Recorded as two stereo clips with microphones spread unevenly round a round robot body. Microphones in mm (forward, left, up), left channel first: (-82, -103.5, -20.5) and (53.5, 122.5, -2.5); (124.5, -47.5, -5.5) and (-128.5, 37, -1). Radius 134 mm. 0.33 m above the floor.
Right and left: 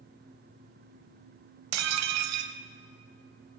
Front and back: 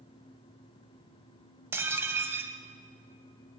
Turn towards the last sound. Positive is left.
turn(degrees=80)